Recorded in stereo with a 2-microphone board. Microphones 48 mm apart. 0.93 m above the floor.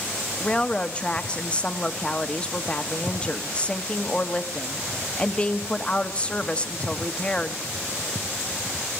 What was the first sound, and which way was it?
A woman speaking, 25° left (ahead or behind).